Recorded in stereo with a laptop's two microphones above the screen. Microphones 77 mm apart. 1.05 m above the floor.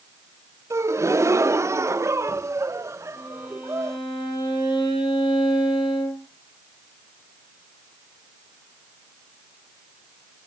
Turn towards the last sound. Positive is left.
turn(degrees=85)